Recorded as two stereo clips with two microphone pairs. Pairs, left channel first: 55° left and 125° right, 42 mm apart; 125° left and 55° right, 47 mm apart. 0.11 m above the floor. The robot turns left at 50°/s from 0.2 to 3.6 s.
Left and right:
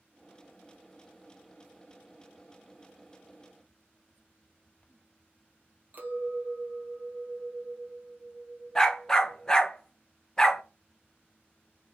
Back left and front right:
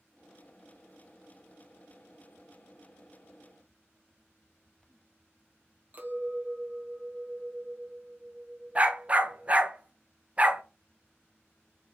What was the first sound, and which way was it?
A clink, 95° right.